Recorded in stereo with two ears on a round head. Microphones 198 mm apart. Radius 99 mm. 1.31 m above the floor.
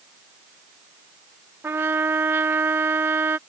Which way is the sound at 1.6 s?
10° right (ahead or behind).